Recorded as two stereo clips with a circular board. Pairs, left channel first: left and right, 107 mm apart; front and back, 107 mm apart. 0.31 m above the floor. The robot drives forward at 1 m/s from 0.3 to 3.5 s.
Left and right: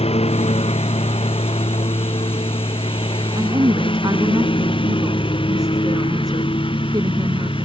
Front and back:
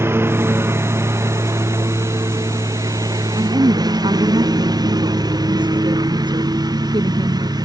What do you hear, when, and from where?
0.0 s a lawn mower: 110° left; by 7.7 s 125° left
3.4 s a woman speaking: 140° right